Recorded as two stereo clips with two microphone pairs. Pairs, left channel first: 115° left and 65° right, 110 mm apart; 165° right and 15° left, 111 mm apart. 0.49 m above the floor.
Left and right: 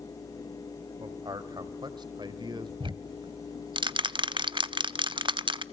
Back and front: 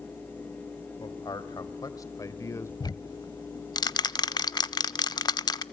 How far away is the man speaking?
About 3 m.